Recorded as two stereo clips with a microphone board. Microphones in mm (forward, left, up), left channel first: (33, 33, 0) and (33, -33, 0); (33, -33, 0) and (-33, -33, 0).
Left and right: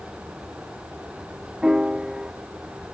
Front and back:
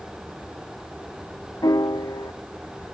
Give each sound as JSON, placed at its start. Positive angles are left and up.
{"t": 1.6, "sound": "a piano", "azimuth_deg": -10}